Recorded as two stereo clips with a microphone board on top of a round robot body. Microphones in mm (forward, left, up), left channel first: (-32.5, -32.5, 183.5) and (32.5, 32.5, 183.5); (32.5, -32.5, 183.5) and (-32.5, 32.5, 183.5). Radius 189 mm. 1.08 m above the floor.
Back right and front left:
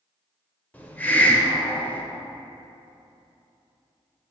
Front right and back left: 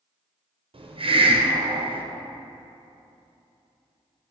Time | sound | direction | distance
0.7 | a hiss | 150° left | 1.0 m